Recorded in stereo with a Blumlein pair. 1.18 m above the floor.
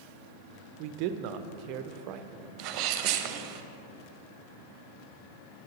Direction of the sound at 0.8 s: 40° right.